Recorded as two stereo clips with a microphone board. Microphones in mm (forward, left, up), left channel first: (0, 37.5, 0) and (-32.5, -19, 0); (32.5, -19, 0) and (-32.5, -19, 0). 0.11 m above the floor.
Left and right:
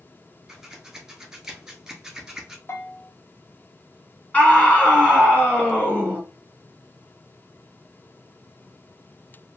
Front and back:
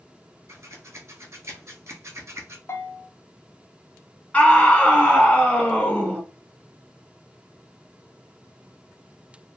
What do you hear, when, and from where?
0.5 s scissors: 160° left, 0.9 m
2.7 s a bell: 30° left, 0.7 m
4.3 s a scream: 40° left, 1.4 m